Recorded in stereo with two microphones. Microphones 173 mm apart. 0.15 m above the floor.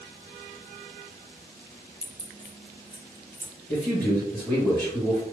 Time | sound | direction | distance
2.0 | keys jangling | 35° right (ahead or behind) | 0.8 m
3.7 | a man speaking | 5° left (ahead or behind) | 1.9 m